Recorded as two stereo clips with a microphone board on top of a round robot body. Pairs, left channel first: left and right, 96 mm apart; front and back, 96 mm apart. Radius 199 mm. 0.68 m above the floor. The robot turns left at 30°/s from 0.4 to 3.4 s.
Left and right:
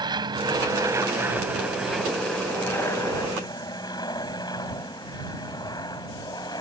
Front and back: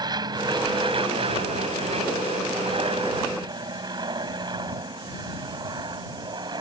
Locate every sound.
0.0 s an aircraft: 135° right; by 6.6 s 135° left